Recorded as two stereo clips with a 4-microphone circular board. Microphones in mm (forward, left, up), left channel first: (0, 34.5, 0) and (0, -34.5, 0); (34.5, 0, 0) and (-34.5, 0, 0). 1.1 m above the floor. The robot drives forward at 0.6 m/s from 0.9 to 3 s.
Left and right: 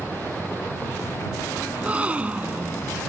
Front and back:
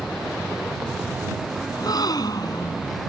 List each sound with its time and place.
1.7 s a gasp: 20° right